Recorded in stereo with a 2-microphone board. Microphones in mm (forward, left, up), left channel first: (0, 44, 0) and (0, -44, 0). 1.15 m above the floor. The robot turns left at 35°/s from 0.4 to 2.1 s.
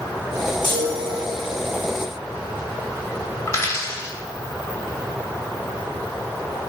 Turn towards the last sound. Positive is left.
turn(degrees=30)  # may be behind; listen again after turning